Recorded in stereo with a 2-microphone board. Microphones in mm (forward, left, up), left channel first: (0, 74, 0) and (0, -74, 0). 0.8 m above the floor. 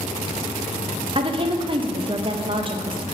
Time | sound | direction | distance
1.1 | a woman speaking | 35° right (ahead or behind) | 0.5 m